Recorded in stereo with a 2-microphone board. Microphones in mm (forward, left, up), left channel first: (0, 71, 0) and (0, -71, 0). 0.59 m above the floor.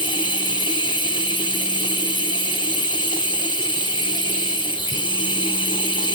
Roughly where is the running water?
Left.